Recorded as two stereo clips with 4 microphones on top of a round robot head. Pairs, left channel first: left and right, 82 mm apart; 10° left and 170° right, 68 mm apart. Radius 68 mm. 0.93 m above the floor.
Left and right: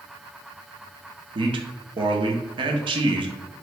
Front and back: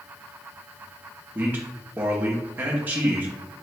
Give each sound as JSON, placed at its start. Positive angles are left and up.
{"t": 1.4, "sound": "a man speaking", "azimuth_deg": -105, "distance_m": 0.8}